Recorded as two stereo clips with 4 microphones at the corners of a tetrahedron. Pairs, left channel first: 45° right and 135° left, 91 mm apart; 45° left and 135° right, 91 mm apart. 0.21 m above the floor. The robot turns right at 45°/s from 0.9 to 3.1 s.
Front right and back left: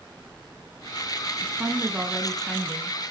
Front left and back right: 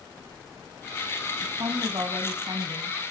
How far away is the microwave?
I don't hear a microwave.